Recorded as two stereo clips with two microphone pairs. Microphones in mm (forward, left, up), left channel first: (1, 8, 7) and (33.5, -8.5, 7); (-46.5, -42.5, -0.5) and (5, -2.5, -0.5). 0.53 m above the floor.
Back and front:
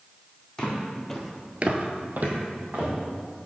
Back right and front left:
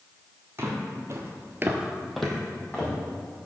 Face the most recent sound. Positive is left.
turn(degrees=-70)